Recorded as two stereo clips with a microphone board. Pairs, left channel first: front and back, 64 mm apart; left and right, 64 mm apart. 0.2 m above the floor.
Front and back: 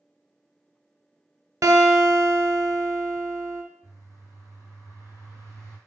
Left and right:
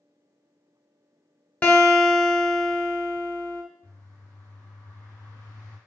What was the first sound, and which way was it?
A guitar, 155° left.